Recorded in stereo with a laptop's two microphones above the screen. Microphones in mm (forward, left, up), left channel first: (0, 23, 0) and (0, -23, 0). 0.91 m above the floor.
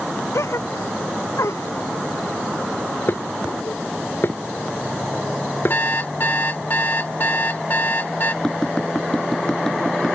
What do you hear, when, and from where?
0.3 s a gasp: 85° left
3.1 s dishes clattering: 50° left (ahead or behind)
5.7 s an alarm clock: 45° left (ahead or behind)
8.4 s tapping: 15° left (ahead or behind)